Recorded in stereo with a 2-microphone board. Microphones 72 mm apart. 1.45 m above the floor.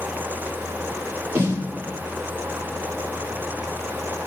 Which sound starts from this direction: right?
A snare drum, at 1.4 s.